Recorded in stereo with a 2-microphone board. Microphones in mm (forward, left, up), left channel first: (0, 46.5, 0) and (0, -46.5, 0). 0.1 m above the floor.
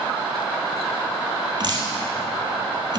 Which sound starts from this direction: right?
Dripping, at 1.6 s.